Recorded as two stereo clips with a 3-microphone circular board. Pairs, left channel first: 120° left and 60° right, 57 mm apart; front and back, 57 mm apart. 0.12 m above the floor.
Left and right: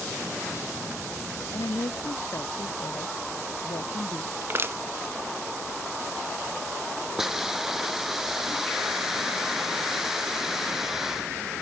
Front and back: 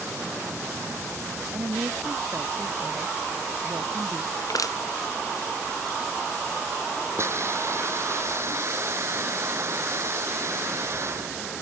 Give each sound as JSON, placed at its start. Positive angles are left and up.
{"t": 1.5, "sound": "a woman speaking", "azimuth_deg": 135}
{"t": 4.4, "sound": "crushing", "azimuth_deg": -10}
{"t": 7.2, "sound": "a hiss", "azimuth_deg": -145}